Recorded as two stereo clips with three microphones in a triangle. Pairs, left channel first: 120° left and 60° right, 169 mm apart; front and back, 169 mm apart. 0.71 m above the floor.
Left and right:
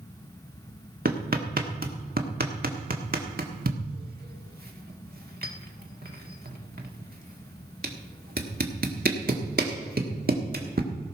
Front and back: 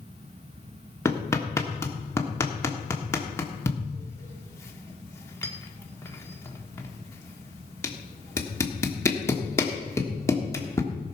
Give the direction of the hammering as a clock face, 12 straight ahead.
2 o'clock.